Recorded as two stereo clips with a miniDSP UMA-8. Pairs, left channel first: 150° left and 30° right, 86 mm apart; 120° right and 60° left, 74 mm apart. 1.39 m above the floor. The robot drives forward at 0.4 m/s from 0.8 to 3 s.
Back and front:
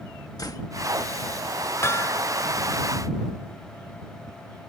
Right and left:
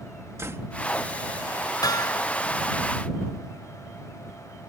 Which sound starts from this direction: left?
A door slam, at 0.4 s.